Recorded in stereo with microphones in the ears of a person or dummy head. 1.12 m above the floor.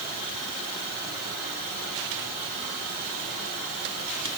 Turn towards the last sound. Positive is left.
No sound to turn to.